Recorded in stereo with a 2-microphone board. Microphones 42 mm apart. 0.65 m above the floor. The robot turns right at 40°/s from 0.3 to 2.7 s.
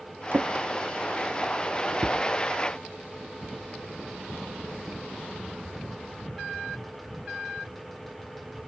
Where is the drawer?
55° right (ahead or behind), 0.5 m; by 2.2 s 30° right (ahead or behind), 0.5 m.